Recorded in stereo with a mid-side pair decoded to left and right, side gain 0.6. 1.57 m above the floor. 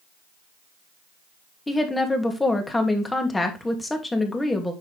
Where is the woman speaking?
15° left, 2.5 m.